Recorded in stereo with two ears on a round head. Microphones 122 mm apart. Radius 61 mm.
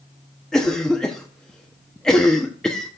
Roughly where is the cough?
Centre.